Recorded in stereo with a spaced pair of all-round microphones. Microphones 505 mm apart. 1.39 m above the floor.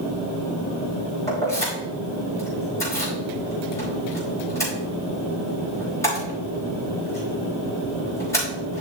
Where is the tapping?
No tapping in this recording.